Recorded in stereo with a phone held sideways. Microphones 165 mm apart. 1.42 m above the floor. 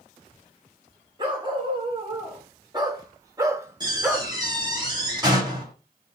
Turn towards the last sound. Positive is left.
turn(degrees=-25)  # may be behind; listen again after turning